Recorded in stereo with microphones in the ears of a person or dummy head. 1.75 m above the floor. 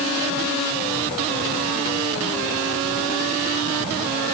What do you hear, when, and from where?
Only background noise.